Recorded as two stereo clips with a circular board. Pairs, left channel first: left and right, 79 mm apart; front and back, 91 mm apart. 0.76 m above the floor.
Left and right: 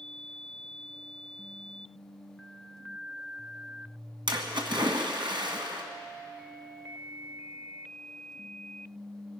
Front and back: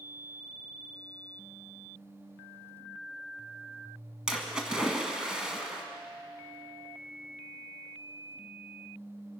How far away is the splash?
About 1.7 m.